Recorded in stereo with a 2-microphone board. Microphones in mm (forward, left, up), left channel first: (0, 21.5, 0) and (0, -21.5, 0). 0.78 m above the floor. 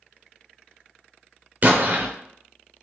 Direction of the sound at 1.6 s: 40° right (ahead or behind).